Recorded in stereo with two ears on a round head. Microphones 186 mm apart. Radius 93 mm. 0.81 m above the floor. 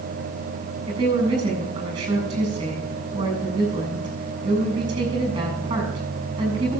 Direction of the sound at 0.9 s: 20° right (ahead or behind).